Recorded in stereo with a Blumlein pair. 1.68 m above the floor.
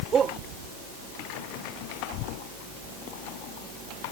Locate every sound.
0.1 s a shout: 20° right